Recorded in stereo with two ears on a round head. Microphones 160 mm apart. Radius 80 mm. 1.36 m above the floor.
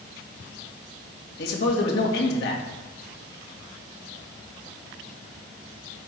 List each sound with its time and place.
1.4 s a man speaking: 60° left (ahead or behind), 2 m